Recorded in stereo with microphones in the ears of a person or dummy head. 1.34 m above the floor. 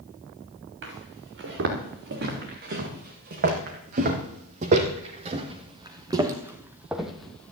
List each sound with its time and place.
0.8 s footsteps: 65° right (ahead or behind), 5.5 m; by 7.5 s 10° left (ahead or behind), 2 m